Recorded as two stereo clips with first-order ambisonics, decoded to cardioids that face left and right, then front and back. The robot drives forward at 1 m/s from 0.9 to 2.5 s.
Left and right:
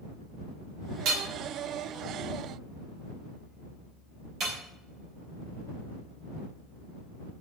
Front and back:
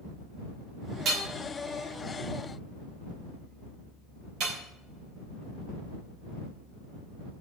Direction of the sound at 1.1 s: 125° right.